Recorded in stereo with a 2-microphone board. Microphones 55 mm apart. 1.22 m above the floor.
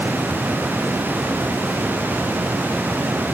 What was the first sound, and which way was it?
Only background noise.